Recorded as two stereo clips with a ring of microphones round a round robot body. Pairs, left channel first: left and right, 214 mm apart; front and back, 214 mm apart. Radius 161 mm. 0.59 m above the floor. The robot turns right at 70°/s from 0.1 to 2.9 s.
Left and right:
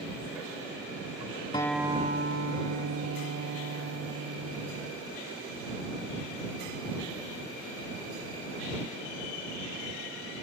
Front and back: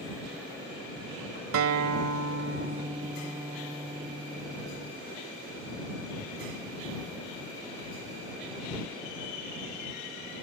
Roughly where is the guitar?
Behind.